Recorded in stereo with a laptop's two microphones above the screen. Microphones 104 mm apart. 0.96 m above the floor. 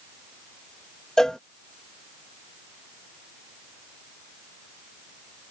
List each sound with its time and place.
1.2 s a cowbell: 5° left (ahead or behind)